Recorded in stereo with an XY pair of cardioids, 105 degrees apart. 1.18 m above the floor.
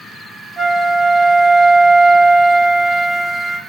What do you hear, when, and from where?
0.6 s a flute: 25° right, 1.4 m